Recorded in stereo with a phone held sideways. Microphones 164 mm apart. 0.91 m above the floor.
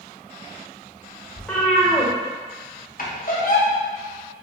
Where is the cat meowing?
5° left (ahead or behind), 0.6 m.